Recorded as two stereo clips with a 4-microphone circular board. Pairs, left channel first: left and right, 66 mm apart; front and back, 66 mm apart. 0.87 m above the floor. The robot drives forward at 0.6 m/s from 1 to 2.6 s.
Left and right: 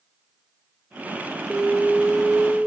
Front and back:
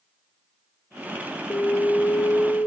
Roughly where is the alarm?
Ahead.